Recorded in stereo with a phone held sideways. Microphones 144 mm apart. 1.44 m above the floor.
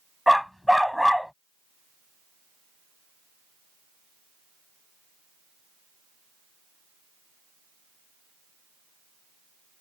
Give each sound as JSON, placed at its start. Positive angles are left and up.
{"t": 0.3, "sound": "a dog barking", "side_deg": 0}